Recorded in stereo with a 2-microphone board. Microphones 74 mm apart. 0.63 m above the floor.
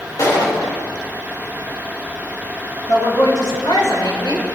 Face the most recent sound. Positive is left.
turn(degrees=85)